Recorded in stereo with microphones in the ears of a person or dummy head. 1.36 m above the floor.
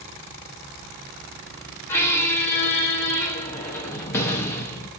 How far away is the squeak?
About 0.7 m.